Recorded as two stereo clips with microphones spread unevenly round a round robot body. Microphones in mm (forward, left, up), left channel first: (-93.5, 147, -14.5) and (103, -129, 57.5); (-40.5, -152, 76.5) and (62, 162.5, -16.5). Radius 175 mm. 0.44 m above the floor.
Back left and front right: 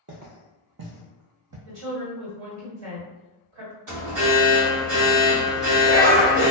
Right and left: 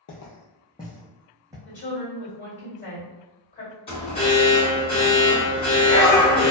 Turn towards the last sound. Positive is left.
turn(degrees=-25)